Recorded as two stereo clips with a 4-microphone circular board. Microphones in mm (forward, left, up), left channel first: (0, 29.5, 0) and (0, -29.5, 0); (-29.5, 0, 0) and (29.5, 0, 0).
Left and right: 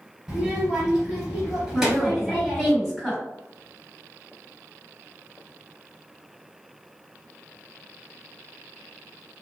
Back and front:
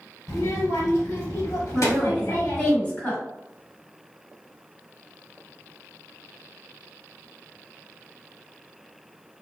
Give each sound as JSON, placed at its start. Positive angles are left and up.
{"t": 0.3, "sound": "a child speaking", "azimuth_deg": -170, "distance_m": 2.0}
{"t": 1.7, "sound": "a woman speaking", "azimuth_deg": 180, "distance_m": 1.7}